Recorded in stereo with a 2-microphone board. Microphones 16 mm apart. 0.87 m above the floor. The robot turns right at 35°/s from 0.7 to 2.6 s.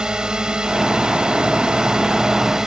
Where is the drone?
110° right; by 2.7 s 45° right.